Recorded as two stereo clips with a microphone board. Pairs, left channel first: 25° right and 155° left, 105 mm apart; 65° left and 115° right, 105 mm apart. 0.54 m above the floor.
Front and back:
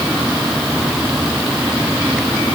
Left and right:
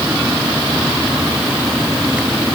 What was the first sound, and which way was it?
Only background noise.